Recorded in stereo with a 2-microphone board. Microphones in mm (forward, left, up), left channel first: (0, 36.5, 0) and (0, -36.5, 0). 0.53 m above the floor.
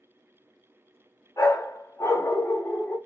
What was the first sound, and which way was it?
A dog barking, 50° left (ahead or behind).